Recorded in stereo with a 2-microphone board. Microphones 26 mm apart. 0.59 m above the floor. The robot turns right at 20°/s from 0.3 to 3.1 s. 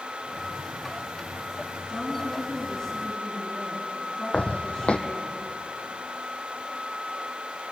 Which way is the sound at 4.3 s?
50° left (ahead or behind).